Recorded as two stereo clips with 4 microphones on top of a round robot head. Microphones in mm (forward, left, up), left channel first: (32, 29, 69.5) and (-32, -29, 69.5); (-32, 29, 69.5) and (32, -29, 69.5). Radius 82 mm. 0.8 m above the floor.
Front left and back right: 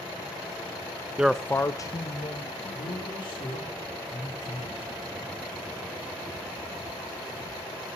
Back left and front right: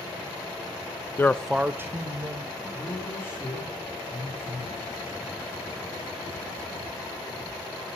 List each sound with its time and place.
1.2 s a man speaking: 155° left, 0.6 m; by 3.7 s 5° left, 2.5 m
2.7 s a man speaking: 75° left, 3 m